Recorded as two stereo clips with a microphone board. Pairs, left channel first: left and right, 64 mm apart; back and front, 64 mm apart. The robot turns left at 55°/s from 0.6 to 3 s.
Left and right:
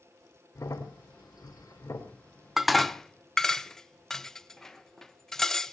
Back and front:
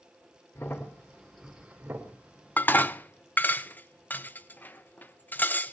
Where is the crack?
130° left, 2.5 m; by 2.1 s 45° left, 2.5 m.